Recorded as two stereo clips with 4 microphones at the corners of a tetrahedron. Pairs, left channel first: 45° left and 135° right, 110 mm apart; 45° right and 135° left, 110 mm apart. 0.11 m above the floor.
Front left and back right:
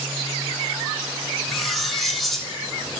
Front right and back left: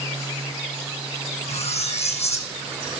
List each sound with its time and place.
1.5 s cutlery clinking: 45° right, 2.5 m